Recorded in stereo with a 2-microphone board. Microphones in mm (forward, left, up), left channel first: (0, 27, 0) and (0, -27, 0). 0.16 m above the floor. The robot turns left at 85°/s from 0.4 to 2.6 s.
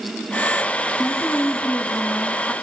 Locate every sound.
1.0 s a woman speaking: 135° left, 1.9 m; by 2.5 s 5° left, 1.9 m